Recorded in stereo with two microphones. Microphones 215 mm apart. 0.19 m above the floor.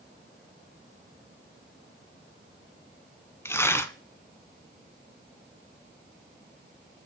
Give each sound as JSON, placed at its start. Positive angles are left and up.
{"t": 3.5, "sound": "tearing paper", "side_deg": 10, "distance_m": 0.5}